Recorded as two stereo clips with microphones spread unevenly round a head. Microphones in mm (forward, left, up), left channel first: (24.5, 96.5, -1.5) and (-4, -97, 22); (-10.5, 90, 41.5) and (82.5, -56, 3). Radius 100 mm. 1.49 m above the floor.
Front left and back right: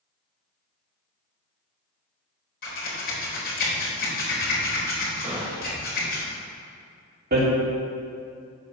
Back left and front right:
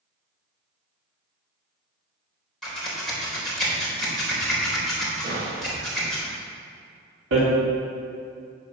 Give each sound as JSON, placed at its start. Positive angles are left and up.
{"t": 2.6, "sound": "scissors", "azimuth_deg": 40, "distance_m": 4.0}
{"t": 5.2, "sound": "a gunshot", "azimuth_deg": -30, "distance_m": 3.0}
{"t": 7.3, "sound": "hammering", "azimuth_deg": -60, "distance_m": 3.0}